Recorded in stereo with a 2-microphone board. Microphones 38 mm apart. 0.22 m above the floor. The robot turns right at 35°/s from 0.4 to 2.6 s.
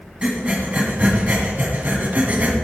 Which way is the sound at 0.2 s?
30° right (ahead or behind).